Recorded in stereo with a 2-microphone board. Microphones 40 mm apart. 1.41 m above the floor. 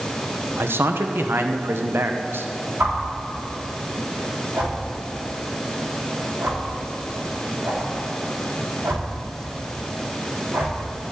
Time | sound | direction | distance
0.6 | a man speaking | 80° right | 1.0 m
2.8 | a whoosh | 70° right (ahead or behind) | 3.5 m